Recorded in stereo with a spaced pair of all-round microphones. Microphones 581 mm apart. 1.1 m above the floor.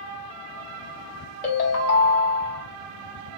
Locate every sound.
1.4 s a ringtone: 75° left (ahead or behind), 1.0 m